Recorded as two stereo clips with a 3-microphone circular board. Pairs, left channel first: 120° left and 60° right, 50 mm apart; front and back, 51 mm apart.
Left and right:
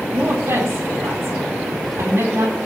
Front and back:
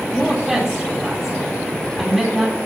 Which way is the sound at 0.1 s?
90° right.